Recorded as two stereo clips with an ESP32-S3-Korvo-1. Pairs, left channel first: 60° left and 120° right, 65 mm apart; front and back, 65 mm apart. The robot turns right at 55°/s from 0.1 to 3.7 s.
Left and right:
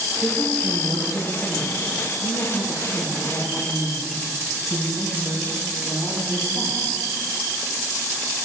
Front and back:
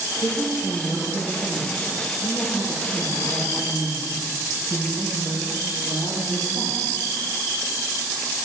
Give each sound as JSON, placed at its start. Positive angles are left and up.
{"t": 0.2, "sound": "a woman speaking", "azimuth_deg": -25, "distance_m": 3.5}